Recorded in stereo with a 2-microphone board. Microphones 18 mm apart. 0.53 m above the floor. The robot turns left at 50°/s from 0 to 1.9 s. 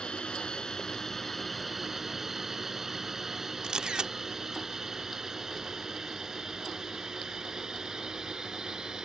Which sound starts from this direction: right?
A camera shutter, at 3.6 s.